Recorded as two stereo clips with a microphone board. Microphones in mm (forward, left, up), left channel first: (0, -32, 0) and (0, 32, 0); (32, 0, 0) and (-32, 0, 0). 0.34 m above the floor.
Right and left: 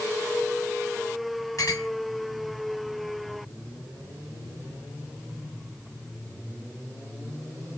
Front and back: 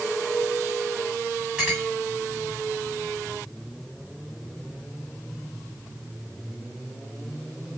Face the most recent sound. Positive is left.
turn(degrees=-105)